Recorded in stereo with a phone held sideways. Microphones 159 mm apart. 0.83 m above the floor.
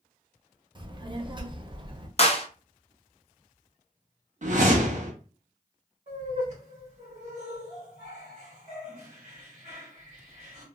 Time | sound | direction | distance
0.8 | a child speaking | 30° right (ahead or behind) | 0.6 m
2.2 | a clap | 40° left (ahead or behind) | 0.6 m
4.4 | a whoosh | 55° right (ahead or behind) | 0.7 m
6.1 | laughter | 50° right (ahead or behind) | 1.2 m